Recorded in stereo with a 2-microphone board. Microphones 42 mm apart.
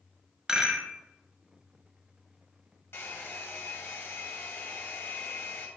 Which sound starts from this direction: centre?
A rattle, at 0.5 s.